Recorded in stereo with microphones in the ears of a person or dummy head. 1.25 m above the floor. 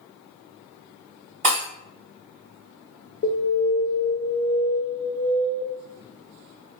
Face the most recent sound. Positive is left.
turn(degrees=45)  # may be behind; listen again after turning